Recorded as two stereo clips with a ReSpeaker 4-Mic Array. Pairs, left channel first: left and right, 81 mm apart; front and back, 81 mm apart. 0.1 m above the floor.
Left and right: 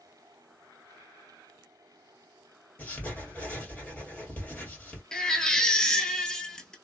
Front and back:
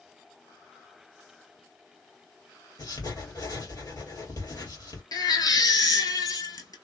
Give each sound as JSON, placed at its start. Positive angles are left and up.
{"t": 2.8, "sound": "writing", "azimuth_deg": 20, "distance_m": 2.0}
{"t": 5.1, "sound": "a baby crying", "azimuth_deg": 10, "distance_m": 0.7}